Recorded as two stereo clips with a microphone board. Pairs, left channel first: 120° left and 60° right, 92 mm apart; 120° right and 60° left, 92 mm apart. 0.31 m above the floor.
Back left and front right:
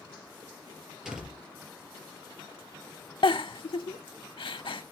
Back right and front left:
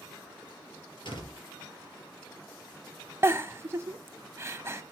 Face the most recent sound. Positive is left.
turn(degrees=115)